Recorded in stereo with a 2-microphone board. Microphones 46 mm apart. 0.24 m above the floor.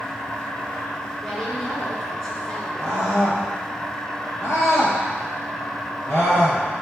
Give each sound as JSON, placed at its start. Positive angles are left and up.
{"t": 0.0, "sound": "an insect", "side_deg": 70, "distance_m": 4.5}
{"t": 1.2, "sound": "a woman speaking", "side_deg": 20, "distance_m": 2.5}
{"t": 2.8, "sound": "a scream", "side_deg": 60, "distance_m": 5.0}